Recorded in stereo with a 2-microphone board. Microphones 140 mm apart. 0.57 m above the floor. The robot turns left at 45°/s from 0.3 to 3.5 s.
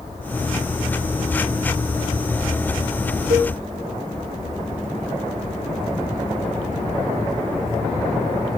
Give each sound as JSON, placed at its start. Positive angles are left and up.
{"t": 3.3, "sound": "a cowbell", "side_deg": -75, "distance_m": 2.5}